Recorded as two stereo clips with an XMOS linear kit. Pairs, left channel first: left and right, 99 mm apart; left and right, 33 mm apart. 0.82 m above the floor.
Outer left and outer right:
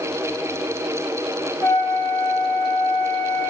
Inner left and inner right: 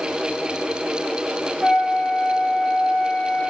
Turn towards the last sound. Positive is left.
turn(degrees=25)  # may be behind; listen again after turning